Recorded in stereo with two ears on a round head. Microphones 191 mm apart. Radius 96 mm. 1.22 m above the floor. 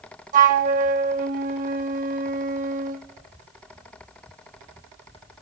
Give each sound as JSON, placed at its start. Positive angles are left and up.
{"t": 0.3, "sound": "a flute", "side_deg": -40, "distance_m": 0.9}